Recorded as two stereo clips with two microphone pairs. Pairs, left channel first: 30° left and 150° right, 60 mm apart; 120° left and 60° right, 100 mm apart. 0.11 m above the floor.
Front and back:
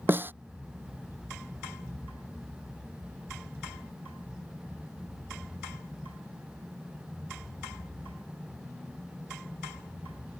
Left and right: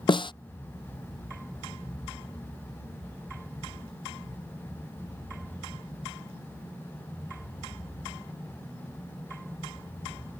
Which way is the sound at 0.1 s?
155° left.